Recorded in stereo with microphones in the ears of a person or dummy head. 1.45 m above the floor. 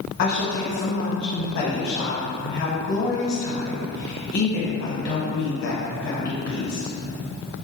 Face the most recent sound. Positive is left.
turn(degrees=55)  # may be behind; listen again after turning